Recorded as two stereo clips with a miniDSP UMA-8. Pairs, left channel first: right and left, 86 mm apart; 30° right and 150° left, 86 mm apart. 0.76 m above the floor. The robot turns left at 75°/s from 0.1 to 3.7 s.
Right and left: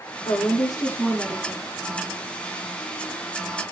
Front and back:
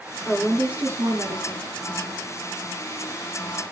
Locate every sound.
0.2 s a woman speaking: 105° right, 1.8 m; by 1.8 s 145° left, 1.8 m